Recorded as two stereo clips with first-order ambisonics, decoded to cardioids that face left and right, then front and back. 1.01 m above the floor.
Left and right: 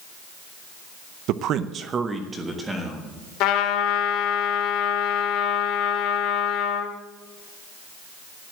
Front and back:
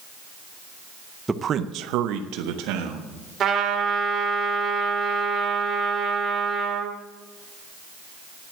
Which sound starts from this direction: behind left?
A trumpet, at 3.4 s.